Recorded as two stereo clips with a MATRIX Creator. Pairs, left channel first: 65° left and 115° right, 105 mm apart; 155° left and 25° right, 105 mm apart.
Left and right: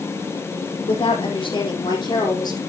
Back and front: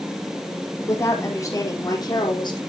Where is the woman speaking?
95° left, 4.5 m; by 2.6 s 115° left, 4 m.